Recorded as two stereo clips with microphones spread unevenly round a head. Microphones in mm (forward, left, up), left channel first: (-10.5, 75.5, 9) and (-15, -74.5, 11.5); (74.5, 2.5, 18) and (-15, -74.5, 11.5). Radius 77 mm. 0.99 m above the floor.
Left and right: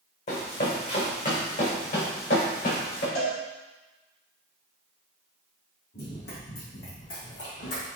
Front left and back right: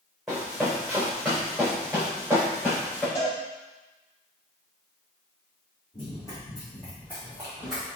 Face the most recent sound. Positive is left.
turn(degrees=130)